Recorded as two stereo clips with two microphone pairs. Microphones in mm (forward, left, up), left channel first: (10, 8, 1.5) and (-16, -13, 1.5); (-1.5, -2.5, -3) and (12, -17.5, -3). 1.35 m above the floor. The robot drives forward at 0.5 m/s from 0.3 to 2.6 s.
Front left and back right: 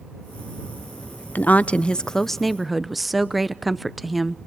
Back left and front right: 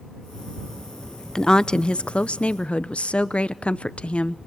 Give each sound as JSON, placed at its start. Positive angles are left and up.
{"t": 1.4, "sound": "a woman speaking", "azimuth_deg": 70, "distance_m": 0.6}